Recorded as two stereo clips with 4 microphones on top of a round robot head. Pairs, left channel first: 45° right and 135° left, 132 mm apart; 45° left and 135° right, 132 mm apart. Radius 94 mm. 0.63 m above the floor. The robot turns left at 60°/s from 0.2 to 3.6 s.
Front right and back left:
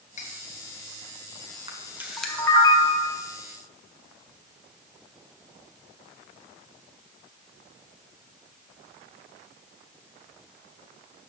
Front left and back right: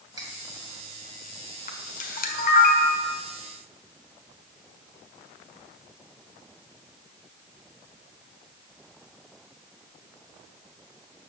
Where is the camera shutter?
80° left, 1.5 m; by 3.1 s 10° right, 1.5 m.